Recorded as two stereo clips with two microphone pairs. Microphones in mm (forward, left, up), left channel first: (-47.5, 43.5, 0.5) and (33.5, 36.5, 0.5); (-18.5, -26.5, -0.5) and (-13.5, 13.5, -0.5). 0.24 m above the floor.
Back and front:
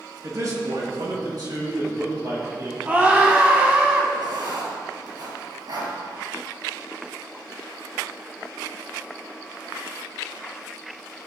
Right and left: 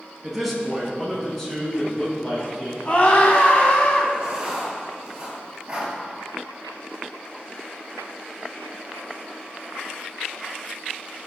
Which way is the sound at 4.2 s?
15° left.